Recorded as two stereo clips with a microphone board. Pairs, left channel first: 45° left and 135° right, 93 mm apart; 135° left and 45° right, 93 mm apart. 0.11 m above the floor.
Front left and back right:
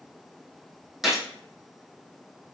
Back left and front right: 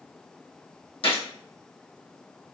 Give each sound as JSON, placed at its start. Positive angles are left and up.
{"t": 1.0, "sound": "a gunshot", "azimuth_deg": 140, "distance_m": 1.4}